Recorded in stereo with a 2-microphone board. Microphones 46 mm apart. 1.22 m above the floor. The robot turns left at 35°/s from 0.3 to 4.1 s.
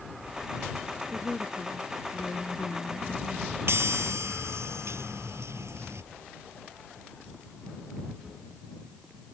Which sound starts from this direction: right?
A chime, at 3.7 s.